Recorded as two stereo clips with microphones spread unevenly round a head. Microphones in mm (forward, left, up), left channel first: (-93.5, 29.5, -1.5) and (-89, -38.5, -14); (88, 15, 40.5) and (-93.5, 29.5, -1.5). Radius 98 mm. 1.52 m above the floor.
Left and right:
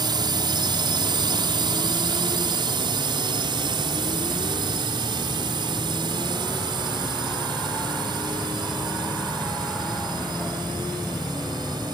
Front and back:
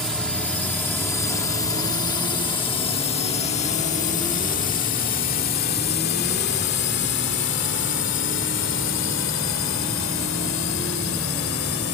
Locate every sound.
0.0 s a drone: 95° right; by 11.9 s 30° right